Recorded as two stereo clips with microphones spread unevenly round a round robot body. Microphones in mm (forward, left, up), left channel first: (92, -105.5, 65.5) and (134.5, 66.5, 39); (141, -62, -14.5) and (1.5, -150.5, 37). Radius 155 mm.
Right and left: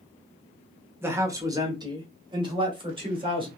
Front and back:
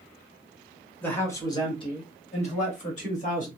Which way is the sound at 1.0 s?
40° left.